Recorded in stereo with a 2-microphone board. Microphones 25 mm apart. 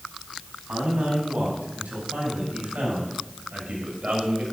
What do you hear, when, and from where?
0.7 s a man speaking: 80° right, 5 m; by 4.4 s 70° right (ahead or behind), 3 m